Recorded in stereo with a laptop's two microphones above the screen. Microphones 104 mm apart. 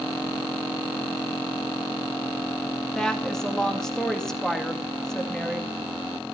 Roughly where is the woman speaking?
Centre.